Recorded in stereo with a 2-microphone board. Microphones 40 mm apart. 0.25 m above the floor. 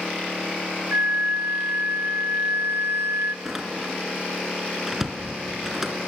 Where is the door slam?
10° right (ahead or behind), 2.5 m.